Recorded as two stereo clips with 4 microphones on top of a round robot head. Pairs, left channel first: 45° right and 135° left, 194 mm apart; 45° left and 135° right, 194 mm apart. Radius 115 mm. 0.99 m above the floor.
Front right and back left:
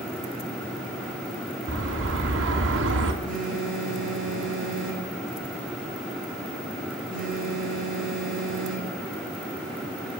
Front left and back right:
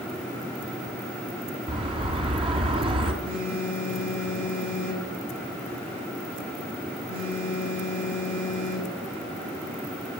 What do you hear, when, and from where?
1.7 s a bird: 160° left, 3 m
3.2 s a phone buzzing: 115° right, 9.5 m